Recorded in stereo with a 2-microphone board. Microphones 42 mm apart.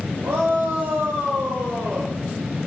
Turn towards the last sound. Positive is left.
turn(degrees=-70)  # may be behind; listen again after turning